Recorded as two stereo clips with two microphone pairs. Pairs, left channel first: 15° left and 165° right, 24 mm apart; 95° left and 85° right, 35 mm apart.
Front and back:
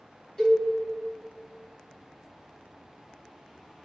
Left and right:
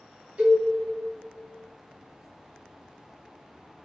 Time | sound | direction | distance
0.4 | a cowbell | 45° right | 1.7 m